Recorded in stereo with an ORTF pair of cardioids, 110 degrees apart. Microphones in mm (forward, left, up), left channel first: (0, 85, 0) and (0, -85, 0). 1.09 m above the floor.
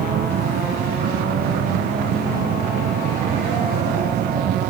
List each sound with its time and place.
0.0 s a machine running: 60° right